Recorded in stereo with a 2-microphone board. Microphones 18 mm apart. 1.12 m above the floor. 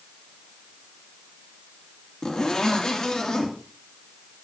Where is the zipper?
45° left (ahead or behind), 2.5 m.